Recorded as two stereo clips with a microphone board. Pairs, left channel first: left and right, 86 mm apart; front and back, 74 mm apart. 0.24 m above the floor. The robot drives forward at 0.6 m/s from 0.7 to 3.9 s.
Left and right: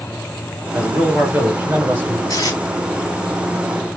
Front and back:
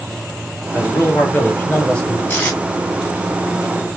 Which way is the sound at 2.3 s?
55° left.